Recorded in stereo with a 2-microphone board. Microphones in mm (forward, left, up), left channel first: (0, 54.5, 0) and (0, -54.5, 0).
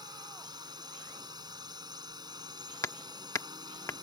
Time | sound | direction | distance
0.0 | a drone | 40° right (ahead or behind) | ?
2.8 | hammering | 25° left (ahead or behind) | ?